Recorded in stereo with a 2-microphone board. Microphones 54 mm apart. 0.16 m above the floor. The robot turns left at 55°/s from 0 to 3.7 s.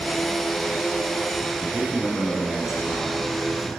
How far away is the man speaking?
About 1.4 m.